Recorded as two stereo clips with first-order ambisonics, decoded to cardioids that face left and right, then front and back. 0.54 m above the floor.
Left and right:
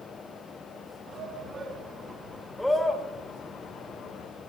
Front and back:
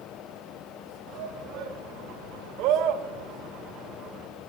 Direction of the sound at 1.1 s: 150° right.